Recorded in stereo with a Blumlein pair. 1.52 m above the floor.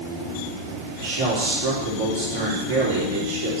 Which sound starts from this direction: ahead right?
A man speaking, at 1.0 s.